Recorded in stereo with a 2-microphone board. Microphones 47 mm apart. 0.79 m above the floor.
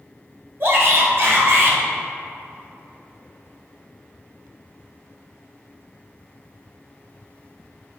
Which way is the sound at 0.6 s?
55° right (ahead or behind).